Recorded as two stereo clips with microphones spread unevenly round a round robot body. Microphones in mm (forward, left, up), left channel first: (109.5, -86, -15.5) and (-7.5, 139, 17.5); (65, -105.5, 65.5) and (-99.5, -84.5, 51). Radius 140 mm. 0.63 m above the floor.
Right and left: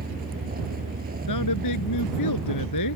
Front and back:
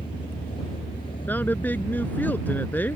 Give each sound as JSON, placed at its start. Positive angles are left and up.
{"t": 0.0, "sound": "a vehicle", "azimuth_deg": 65}
{"t": 1.3, "sound": "a woman speaking", "azimuth_deg": -85}